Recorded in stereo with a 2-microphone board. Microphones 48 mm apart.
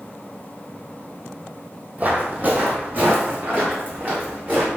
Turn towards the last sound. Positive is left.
turn(degrees=-45)  # may be behind; listen again after turning